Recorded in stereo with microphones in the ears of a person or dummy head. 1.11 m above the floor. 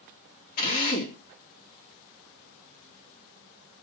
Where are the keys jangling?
I don't hear keys jangling.